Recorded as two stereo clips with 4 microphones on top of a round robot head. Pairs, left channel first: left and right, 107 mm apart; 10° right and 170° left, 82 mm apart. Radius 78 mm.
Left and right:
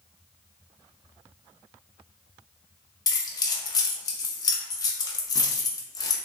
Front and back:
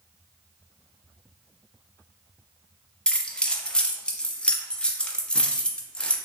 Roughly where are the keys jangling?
Ahead left.